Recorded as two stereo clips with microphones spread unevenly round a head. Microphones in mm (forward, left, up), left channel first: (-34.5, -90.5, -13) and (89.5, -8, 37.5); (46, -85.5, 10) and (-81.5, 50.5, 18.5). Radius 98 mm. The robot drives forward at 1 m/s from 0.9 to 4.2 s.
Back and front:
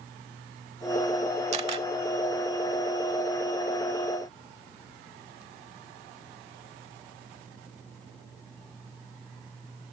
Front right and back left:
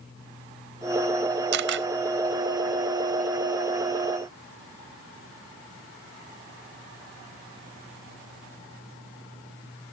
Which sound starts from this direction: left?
A camera shutter, at 1.5 s.